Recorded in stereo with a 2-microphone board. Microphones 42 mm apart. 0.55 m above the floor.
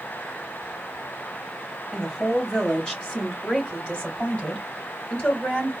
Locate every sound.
1.9 s a woman speaking: 10° left (ahead or behind), 1.5 m; by 5.7 s 35° left (ahead or behind), 3 m